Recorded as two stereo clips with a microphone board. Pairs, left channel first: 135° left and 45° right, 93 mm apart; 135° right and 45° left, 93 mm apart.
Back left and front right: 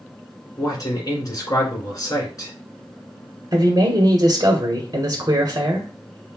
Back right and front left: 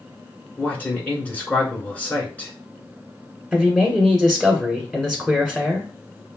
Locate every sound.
0.6 s a man speaking: 160° left, 1.8 m
3.5 s a man speaking: 40° right, 1.4 m